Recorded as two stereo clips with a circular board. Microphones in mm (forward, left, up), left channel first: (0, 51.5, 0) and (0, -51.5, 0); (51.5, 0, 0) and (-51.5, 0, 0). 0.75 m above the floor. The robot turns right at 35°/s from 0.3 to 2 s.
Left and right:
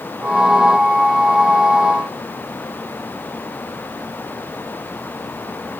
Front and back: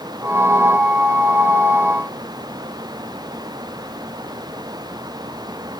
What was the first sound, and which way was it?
Only background noise.